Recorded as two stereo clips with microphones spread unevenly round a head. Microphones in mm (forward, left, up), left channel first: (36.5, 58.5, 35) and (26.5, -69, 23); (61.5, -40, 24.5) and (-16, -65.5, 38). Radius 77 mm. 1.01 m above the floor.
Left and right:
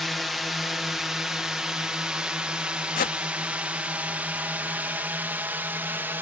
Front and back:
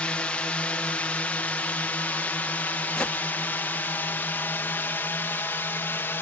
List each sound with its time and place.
0.0 s a drone: 15° right; by 6.2 s 30° right
3.0 s a whoosh: 100° left